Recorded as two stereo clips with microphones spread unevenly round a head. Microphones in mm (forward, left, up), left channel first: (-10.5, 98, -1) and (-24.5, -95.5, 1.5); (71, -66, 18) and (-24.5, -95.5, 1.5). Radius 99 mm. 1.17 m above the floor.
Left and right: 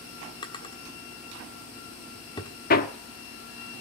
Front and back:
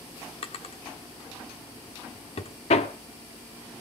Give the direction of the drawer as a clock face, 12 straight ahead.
11 o'clock.